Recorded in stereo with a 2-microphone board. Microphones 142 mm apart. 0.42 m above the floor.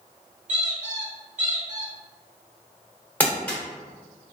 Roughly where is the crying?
No crying in this recording.